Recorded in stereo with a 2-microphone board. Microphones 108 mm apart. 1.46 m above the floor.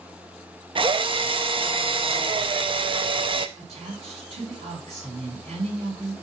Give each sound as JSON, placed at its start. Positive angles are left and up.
{"t": 0.8, "sound": "a drill", "side_deg": -50, "distance_m": 0.6}
{"t": 3.6, "sound": "a woman speaking", "side_deg": -70, "distance_m": 3.5}